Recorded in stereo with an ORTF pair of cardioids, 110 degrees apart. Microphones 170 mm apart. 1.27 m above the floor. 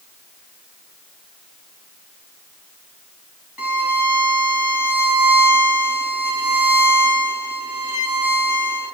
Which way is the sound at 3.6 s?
5° right.